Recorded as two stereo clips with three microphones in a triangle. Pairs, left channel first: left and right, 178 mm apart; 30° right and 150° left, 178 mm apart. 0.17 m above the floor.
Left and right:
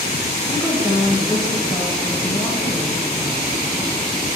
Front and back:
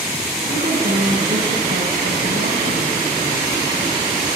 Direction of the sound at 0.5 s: 160° left.